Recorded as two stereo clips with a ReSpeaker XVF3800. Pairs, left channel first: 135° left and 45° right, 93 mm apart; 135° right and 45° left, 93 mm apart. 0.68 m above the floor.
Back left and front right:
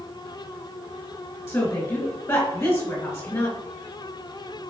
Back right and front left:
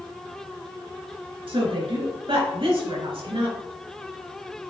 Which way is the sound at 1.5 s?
75° left.